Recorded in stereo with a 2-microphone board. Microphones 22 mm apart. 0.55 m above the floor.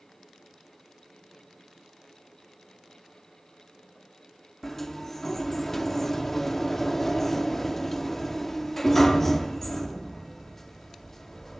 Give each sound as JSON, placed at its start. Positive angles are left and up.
{"t": 4.6, "sound": "a sliding door", "side_deg": 15, "distance_m": 0.8}